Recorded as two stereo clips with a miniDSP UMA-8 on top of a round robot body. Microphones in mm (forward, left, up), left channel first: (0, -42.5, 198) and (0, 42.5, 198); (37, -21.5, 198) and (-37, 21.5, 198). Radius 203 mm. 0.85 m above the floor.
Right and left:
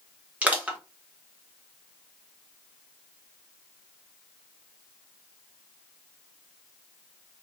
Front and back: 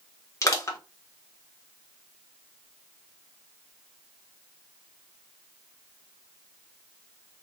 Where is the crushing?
20° left, 1.3 m.